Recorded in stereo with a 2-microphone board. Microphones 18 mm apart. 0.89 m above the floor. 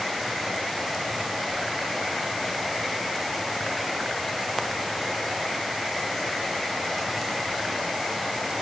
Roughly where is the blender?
I don't hear a blender.